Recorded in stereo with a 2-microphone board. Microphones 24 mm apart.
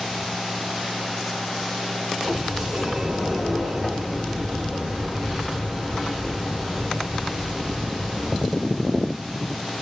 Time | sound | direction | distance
2.2 | a sliding door | 15° right (ahead or behind) | 1.1 m